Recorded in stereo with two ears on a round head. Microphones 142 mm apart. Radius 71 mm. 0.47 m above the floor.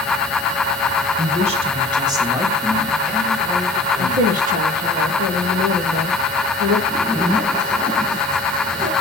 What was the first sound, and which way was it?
A woman speaking, 50° right (ahead or behind).